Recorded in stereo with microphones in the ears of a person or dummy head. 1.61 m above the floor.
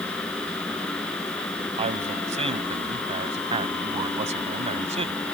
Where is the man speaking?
30° right (ahead or behind).